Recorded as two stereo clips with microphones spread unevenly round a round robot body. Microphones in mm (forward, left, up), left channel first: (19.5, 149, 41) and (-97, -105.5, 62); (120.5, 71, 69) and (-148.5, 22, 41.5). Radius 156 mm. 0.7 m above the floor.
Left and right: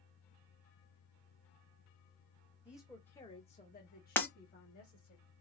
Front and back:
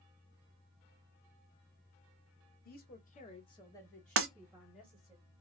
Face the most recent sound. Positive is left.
turn(degrees=150)